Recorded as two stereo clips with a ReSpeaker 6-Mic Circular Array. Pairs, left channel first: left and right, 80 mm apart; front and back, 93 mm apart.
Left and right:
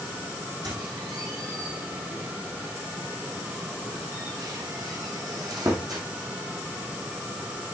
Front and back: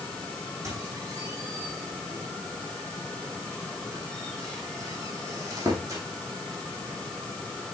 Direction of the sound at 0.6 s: 125° right.